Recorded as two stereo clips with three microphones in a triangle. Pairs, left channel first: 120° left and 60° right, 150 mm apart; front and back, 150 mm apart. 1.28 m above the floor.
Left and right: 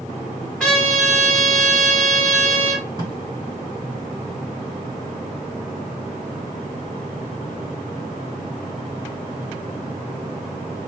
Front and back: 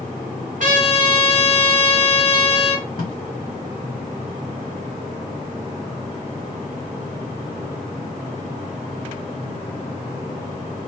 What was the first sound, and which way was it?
A trumpet, 155° right.